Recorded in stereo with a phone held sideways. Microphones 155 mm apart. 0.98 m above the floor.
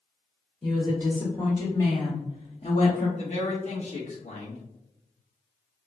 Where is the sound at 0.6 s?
5° left (ahead or behind), 1.5 m; by 3.1 s 50° left (ahead or behind), 1.0 m.